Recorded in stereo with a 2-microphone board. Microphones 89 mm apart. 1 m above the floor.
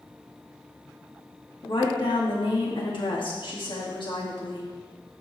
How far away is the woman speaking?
About 2 m.